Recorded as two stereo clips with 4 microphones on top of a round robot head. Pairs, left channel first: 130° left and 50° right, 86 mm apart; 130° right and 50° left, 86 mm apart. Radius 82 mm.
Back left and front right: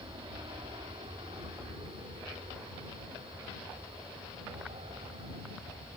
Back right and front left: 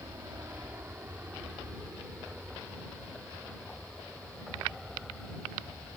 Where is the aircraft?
10° right; by 6.0 s 40° right.